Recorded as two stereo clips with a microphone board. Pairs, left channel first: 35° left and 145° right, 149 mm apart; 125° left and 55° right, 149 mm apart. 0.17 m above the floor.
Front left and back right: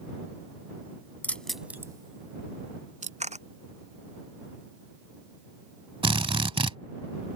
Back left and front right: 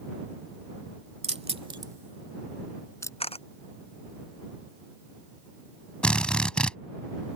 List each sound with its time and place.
1.2 s keys jangling: 40° right; by 3.1 s 170° right
3.2 s a camera shutter: 175° left
6.0 s a drill: 155° right